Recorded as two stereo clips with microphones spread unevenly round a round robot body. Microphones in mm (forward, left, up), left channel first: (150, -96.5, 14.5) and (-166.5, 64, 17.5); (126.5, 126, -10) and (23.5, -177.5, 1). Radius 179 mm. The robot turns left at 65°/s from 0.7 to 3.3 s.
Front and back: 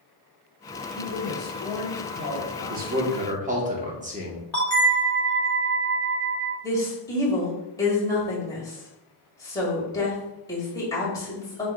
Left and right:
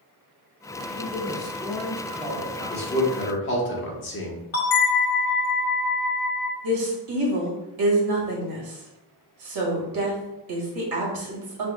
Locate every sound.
0.9 s a woman speaking: 25° left, 1.8 m; by 3.1 s 115° right, 1.8 m
2.7 s a man speaking: 135° left, 1.0 m; by 4.4 s 95° left, 1.0 m
4.5 s a bell: 60° left, 1.3 m
6.6 s a woman speaking: 105° right, 1.9 m